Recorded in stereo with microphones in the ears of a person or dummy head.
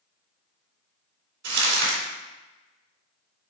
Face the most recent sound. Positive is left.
turn(degrees=-70)  # may be behind; listen again after turning